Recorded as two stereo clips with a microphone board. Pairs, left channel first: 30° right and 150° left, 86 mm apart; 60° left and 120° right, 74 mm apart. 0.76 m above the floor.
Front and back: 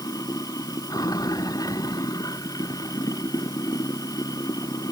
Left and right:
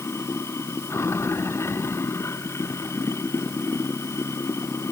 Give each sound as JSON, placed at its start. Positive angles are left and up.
{"t": 0.0, "sound": "running water", "azimuth_deg": 10}